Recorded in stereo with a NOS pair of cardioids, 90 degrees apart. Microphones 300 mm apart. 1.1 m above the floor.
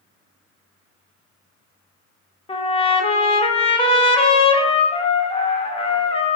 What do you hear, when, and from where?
2.5 s a trumpet: 20° left, 0.7 m